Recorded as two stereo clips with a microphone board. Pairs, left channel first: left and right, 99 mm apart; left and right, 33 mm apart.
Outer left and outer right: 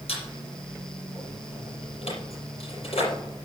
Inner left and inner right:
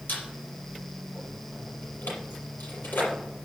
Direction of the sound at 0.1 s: 90° left.